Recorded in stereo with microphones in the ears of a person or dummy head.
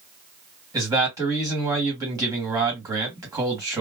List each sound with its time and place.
0.7 s a man speaking: 15° right (ahead or behind), 1.6 m